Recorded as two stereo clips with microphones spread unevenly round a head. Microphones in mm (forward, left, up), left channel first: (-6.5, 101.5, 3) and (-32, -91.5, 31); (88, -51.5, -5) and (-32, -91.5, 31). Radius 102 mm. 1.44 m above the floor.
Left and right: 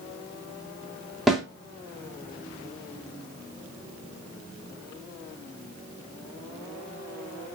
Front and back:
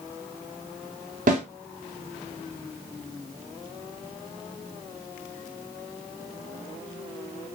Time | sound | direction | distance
1.3 | a snare drum | 175° left | 2.5 m